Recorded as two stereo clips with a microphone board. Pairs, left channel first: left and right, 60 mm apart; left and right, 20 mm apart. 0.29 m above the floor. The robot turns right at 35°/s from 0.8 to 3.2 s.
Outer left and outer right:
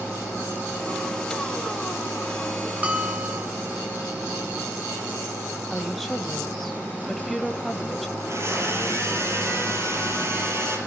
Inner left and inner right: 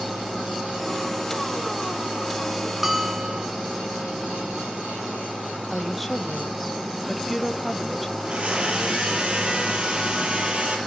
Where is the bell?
20° right (ahead or behind), 4 m; by 3.5 s 35° right (ahead or behind), 4 m.